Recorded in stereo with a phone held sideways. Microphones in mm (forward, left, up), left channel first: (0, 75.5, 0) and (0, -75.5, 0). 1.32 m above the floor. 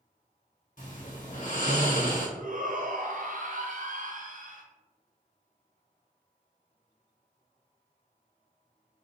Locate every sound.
0.8 s snoring: 65° left (ahead or behind), 1.2 m
2.4 s a shout: 70° right (ahead or behind), 0.8 m